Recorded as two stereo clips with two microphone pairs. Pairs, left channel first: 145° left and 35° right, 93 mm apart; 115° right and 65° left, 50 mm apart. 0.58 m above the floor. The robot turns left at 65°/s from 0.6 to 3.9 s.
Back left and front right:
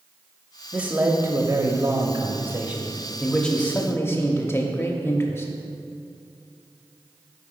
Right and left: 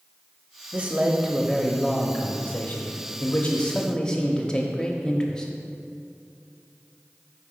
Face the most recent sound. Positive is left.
turn(degrees=180)